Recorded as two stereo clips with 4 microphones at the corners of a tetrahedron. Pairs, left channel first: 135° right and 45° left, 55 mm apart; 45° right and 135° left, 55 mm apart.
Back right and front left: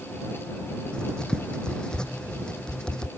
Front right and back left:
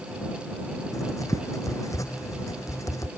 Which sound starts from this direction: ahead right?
Writing, at 0.9 s.